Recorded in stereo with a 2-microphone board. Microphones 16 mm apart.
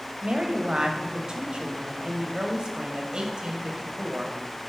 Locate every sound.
0.2 s a woman speaking: 50° right (ahead or behind), 1.1 m